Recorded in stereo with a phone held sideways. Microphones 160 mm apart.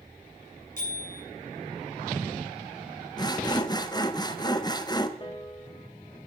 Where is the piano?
30° left (ahead or behind), 1.5 m.